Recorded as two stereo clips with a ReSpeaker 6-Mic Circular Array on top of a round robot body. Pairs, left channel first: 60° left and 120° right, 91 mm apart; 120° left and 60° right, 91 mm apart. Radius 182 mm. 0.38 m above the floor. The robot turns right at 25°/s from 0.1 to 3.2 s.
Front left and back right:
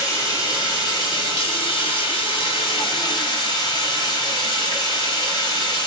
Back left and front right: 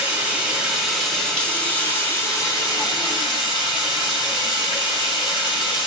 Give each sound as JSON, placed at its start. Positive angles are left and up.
{"t": 0.0, "sound": "running water", "azimuth_deg": 10, "distance_m": 1.6}